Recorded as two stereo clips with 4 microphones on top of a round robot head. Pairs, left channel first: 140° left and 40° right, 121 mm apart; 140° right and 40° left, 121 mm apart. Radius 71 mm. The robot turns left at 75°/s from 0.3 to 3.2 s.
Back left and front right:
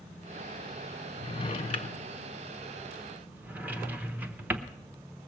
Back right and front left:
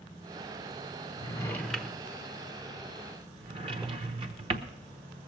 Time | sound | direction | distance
1.2 | a drawer | straight behind | 0.7 m